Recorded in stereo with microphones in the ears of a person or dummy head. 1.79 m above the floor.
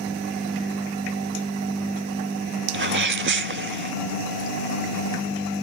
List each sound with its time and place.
2.7 s a sneeze: 55° right (ahead or behind)